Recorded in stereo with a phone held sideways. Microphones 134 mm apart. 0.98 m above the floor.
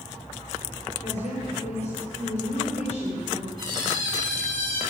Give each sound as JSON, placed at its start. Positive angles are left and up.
{"t": 1.0, "sound": "a woman speaking", "side_deg": 55, "distance_m": 3.5}
{"t": 3.6, "sound": "a squeak", "side_deg": -35, "distance_m": 4.0}